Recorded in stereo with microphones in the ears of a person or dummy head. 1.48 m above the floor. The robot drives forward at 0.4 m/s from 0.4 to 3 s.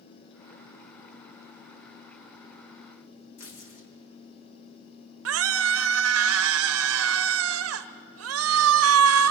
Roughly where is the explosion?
I don't hear an explosion.